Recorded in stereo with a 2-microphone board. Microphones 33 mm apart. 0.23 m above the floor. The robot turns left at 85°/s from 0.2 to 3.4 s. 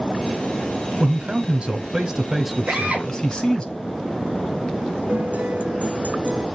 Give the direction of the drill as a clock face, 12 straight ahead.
4 o'clock.